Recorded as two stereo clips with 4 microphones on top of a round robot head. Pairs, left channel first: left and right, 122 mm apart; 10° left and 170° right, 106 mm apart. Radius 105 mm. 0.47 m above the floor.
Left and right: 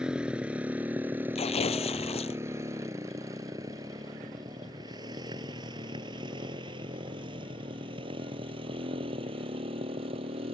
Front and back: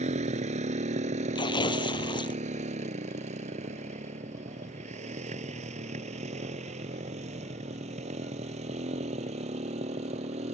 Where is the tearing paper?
55° left.